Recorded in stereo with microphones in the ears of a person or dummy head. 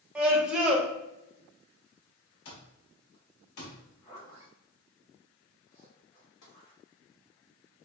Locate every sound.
0.1 s a scream: centre (ahead or behind), 0.7 m
2.5 s an alarm clock: 60° left (ahead or behind), 1.4 m
3.8 s a zipper: 40° left (ahead or behind), 1.8 m
6.4 s tapping: 80° left, 1.2 m